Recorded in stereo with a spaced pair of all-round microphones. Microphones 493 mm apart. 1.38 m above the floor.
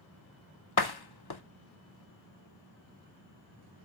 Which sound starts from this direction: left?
A door slam, at 0.8 s.